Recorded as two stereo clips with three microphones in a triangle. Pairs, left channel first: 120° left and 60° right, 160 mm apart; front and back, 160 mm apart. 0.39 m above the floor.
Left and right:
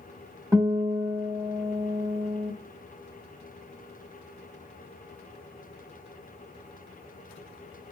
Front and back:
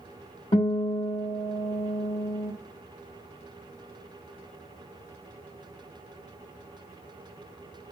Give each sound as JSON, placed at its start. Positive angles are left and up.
{"t": 0.5, "sound": "a guitar", "azimuth_deg": 0, "distance_m": 0.9}